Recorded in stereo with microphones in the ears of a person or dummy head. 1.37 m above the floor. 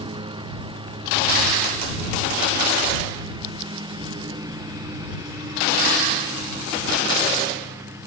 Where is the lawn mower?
30° right (ahead or behind); by 8.1 s 20° right (ahead or behind).